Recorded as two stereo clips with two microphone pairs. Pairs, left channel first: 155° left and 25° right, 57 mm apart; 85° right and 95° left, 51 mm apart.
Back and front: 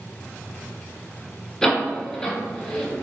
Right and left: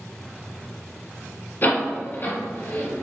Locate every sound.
1.6 s a door slam: 125° right, 1.6 m